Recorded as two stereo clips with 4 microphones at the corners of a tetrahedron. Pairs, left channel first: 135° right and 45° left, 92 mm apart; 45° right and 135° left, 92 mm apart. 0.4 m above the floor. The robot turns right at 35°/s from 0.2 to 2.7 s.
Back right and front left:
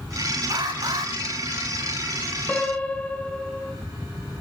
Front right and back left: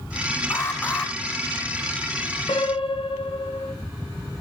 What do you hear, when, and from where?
0.5 s an alarm: 10° left, 3 m; by 1.1 s 35° left, 3 m
2.5 s a piano: 65° right, 2.5 m; by 3.7 s 55° right, 2.5 m